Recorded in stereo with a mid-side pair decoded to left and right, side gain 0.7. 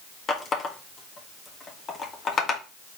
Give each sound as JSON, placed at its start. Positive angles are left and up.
{"t": 0.3, "sound": "a running tap", "azimuth_deg": 35, "distance_m": 1.3}